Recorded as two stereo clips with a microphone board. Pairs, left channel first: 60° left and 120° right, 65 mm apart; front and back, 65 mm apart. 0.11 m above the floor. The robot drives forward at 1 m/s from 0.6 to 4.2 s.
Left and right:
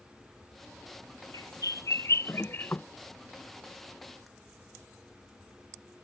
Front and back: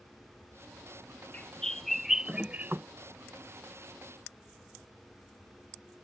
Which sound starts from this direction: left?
A bird, at 1.3 s.